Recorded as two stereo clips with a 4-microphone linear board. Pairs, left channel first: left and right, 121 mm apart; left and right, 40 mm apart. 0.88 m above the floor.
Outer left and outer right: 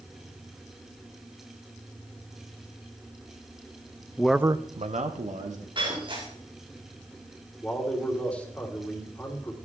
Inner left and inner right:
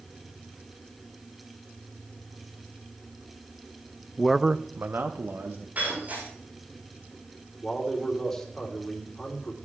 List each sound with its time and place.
4.2 s a man speaking: 15° left (ahead or behind), 0.6 m; by 5.7 s 75° right (ahead or behind), 1.7 m
5.8 s breaking glass: 45° right (ahead or behind), 8 m
7.6 s a man speaking: 10° left (ahead or behind), 3 m